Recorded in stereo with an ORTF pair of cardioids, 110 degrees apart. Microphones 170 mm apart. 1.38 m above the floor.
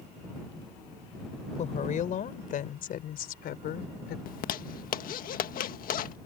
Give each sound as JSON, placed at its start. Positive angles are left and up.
{"t": 1.6, "sound": "a woman speaking", "azimuth_deg": 45}
{"t": 4.3, "sound": "a zipper", "azimuth_deg": 60}